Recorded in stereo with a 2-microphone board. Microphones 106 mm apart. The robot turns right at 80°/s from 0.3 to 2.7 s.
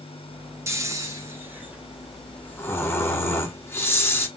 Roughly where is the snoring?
Right.